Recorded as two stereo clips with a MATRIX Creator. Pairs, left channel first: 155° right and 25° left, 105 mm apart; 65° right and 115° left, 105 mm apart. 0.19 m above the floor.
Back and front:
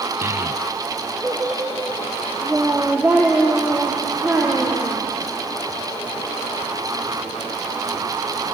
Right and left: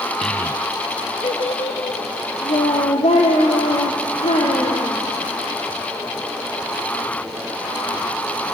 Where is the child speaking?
15° left, 0.7 m; by 4.9 s 55° right, 5.5 m.